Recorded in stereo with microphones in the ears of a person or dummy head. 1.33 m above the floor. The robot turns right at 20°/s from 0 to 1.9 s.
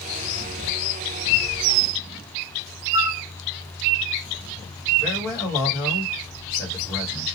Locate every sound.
2.9 s a flute: 20° right (ahead or behind), 0.6 m
5.0 s a man speaking: 15° left (ahead or behind), 1.3 m